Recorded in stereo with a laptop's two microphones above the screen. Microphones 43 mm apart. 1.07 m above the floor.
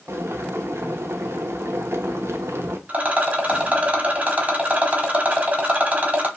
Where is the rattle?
35° right (ahead or behind), 1.0 m.